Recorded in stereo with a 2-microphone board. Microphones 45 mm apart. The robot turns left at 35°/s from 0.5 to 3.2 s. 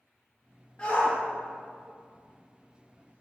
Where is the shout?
25° left (ahead or behind), 2.5 m; by 3.2 s 70° left (ahead or behind), 2.5 m.